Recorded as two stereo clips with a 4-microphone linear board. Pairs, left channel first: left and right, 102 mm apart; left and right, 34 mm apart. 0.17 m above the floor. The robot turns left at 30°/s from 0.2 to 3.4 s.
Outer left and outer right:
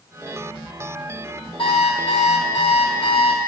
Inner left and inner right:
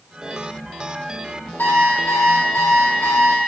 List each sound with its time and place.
1.6 s an alarm clock: 115° left, 4 m; by 3.4 s 60° left, 4 m